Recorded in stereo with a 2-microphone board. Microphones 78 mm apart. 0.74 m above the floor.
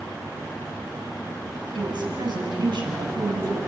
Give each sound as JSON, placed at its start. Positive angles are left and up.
{"t": 1.8, "sound": "a woman speaking", "side_deg": -70, "distance_m": 5.0}